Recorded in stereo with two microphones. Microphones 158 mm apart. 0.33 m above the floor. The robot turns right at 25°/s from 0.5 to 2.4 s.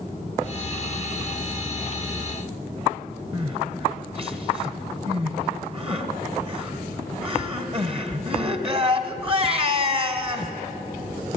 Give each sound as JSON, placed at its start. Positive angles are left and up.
{"t": 3.3, "sound": "crying", "side_deg": -40, "distance_m": 1.6}